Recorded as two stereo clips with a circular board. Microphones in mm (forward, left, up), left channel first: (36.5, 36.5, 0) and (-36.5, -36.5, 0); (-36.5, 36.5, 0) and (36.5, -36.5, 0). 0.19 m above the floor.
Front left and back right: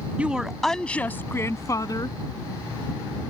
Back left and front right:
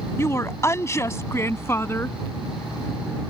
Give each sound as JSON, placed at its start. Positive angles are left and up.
{"t": 0.2, "sound": "a woman speaking", "azimuth_deg": 160}